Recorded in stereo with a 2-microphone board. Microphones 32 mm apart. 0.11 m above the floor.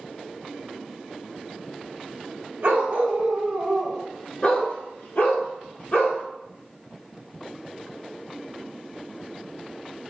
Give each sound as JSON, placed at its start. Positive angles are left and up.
{"t": 2.6, "sound": "a dog barking", "side_deg": -60, "distance_m": 0.9}